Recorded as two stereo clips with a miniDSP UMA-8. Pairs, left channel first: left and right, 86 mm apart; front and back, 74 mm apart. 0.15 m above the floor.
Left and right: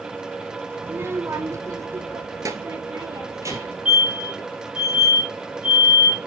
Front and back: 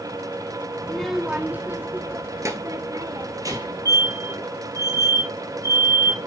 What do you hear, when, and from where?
0.8 s a child speaking: 55° right, 0.8 m; by 3.9 s 145° right, 3 m
3.5 s a fire alarm: 170° right, 4 m